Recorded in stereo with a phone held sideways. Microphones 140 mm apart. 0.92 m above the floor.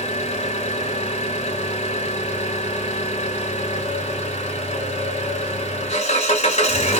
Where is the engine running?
50° left (ahead or behind), 1.3 m.